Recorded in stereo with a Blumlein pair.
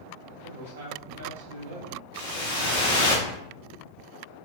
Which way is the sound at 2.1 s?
60° left.